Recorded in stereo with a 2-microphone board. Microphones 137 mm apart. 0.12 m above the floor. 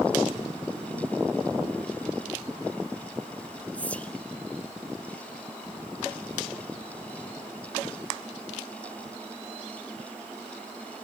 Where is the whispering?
10° left (ahead or behind), 1.1 m.